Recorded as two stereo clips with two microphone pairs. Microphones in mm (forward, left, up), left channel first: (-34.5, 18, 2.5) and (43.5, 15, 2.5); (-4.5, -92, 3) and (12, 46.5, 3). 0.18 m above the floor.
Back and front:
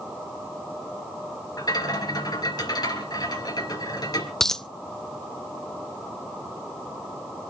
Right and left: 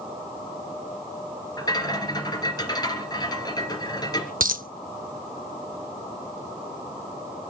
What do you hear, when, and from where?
1.6 s a rattle: 155° right, 3 m
4.4 s a dropped coin: 95° left, 0.5 m